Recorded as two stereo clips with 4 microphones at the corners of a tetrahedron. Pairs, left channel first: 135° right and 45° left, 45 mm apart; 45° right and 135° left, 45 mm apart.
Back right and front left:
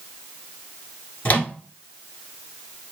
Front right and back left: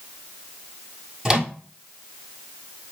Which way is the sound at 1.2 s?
150° right.